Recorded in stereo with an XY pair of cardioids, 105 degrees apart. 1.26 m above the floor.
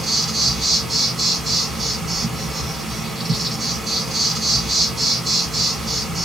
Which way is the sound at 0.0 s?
30° right.